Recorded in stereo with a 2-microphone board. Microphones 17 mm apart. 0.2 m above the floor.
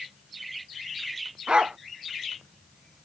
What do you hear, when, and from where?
1.5 s a dog barking: 70° right (ahead or behind)